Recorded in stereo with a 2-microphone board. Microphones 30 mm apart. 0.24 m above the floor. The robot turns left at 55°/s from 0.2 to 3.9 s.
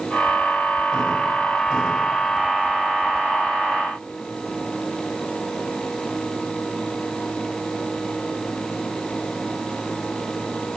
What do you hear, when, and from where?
Only background noise.